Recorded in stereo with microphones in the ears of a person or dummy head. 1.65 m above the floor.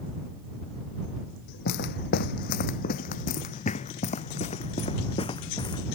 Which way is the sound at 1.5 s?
55° left (ahead or behind).